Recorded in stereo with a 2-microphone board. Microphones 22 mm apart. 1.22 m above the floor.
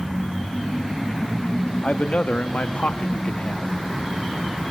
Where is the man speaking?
60° left (ahead or behind), 1.7 m; by 3.8 s 50° left (ahead or behind), 1.8 m.